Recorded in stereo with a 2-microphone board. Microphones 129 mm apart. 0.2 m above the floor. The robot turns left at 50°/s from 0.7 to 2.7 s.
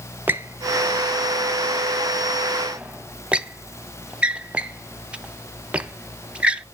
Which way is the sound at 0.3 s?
15° right (ahead or behind).